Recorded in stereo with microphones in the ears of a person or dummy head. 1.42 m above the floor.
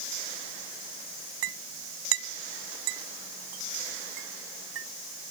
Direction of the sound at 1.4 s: 85° right.